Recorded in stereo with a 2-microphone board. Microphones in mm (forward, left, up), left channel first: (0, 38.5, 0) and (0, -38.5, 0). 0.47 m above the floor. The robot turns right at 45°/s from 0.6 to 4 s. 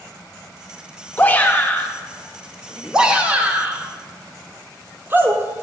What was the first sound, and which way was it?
A shout, 25° left (ahead or behind).